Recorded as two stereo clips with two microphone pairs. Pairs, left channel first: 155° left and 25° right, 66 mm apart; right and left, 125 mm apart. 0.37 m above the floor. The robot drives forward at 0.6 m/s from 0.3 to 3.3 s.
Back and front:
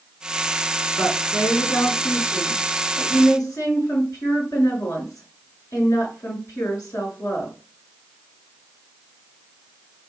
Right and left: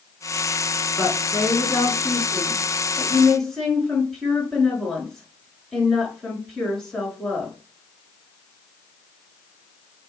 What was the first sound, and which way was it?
A woman speaking, straight behind.